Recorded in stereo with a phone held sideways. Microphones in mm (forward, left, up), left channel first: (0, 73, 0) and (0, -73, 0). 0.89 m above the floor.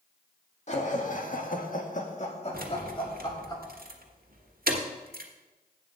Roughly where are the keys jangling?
Right.